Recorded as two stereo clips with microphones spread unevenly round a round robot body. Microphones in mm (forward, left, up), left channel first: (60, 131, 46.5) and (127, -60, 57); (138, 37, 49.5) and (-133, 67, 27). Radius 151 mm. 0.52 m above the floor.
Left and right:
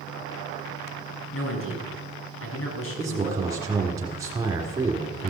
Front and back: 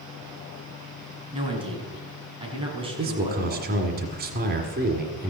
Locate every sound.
1.3 s a man speaking: 105° left, 4 m
3.0 s a man speaking: 145° right, 1.7 m